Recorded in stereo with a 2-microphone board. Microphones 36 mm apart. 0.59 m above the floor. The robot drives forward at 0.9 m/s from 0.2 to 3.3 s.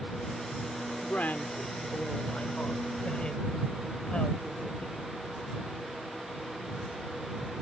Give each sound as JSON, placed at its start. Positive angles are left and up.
{"t": 1.0, "sound": "a woman speaking", "side_deg": 55}